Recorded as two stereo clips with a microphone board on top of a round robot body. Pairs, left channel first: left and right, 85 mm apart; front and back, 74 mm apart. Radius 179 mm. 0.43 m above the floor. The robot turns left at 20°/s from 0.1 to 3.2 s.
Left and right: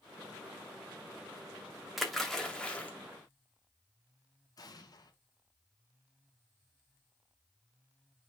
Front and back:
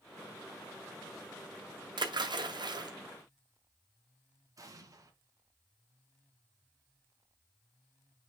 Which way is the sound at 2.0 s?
Straight behind.